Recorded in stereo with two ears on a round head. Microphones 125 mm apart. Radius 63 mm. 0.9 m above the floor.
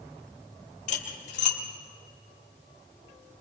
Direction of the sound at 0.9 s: 60° left (ahead or behind).